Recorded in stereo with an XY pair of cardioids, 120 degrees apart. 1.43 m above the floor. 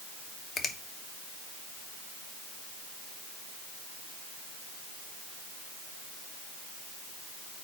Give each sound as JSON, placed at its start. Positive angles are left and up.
{"t": 0.6, "sound": "a finger snap", "azimuth_deg": 40, "distance_m": 1.2}